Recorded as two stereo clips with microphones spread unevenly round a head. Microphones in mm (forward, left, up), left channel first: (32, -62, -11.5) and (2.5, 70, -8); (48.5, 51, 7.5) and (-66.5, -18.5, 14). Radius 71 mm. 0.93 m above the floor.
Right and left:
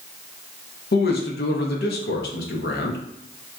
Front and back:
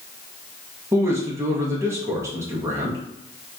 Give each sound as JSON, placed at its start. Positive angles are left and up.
{"t": 0.9, "sound": "a man speaking", "azimuth_deg": -75, "distance_m": 0.8}